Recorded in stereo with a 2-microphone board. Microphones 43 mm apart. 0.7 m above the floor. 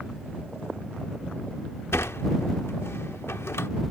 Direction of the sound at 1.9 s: 70° left (ahead or behind).